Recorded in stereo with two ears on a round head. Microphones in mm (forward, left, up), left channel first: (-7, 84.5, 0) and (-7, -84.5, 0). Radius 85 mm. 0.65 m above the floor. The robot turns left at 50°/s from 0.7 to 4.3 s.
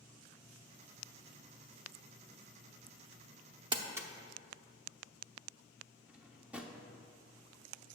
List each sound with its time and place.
3.7 s crumpling: 25° right (ahead or behind), 0.7 m; by 4.1 s 10° right (ahead or behind), 0.7 m
6.1 s a drawer: 5° right (ahead or behind), 0.6 m